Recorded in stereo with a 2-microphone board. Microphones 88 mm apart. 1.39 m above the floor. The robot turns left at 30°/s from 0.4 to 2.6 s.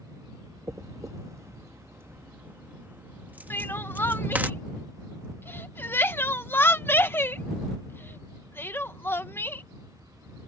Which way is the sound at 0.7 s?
35° right (ahead or behind).